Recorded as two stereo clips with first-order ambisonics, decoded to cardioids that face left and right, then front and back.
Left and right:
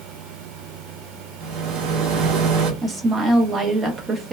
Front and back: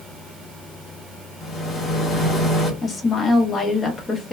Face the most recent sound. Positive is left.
turn(degrees=-40)